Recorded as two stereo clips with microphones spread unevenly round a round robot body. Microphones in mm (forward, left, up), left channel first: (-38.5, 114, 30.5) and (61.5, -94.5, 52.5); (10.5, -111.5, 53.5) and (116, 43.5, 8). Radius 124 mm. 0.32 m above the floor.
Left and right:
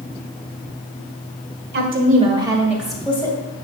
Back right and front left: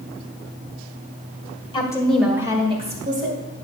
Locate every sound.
1.7 s a woman speaking: 55° right, 1.7 m; by 3.4 s 40° left, 2.5 m